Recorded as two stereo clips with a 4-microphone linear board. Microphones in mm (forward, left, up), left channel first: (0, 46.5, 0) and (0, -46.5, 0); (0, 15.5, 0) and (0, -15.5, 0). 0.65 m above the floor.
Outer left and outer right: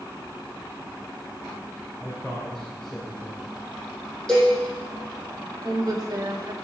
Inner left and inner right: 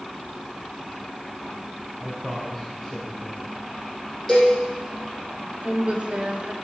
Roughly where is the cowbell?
Centre.